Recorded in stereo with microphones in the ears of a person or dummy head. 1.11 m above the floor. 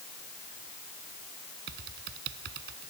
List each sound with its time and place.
1.7 s typing on a keyboard: 55° right (ahead or behind)